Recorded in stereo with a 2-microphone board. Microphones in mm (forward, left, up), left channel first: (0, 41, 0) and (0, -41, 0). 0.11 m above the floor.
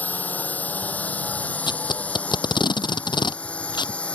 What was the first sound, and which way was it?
A drone, 20° left (ahead or behind).